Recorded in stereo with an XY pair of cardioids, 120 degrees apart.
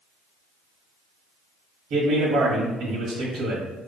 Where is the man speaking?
65° right, 1.4 m.